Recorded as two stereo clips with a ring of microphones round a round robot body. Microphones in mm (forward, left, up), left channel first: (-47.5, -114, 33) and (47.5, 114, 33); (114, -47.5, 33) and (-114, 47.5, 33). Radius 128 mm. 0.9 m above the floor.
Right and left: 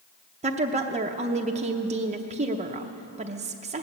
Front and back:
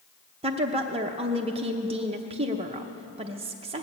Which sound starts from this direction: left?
A woman speaking, at 0.4 s.